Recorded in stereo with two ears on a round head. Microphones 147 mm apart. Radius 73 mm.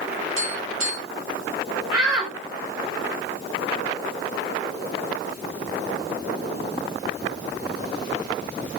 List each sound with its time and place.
0.4 s tapping: 85° right, 6 m
1.9 s a shout: 25° right (ahead or behind), 2.5 m